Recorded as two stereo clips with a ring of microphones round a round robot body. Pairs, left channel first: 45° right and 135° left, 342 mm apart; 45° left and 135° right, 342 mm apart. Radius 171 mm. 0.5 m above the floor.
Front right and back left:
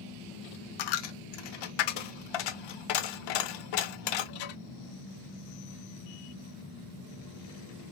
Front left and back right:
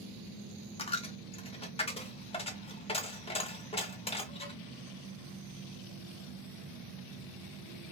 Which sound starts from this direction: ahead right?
A dropped coin, at 0.8 s.